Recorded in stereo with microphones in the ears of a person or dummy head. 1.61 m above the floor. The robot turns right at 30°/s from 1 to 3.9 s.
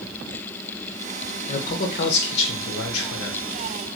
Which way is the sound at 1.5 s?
40° left.